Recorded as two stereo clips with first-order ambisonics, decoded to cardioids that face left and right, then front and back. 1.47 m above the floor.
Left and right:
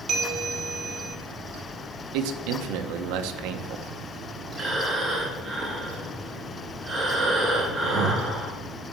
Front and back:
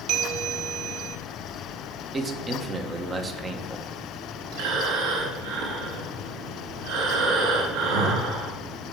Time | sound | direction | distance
0.1 | a bell | 145° right | 1.6 m
2.1 | a man speaking | 105° right | 1.2 m
4.5 | breathing | 170° right | 3.5 m